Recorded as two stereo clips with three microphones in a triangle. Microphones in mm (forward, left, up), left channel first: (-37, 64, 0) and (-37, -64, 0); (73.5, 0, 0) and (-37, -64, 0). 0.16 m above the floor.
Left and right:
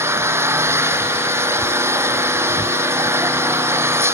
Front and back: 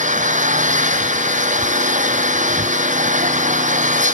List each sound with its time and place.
0.0 s an engine running: 160° right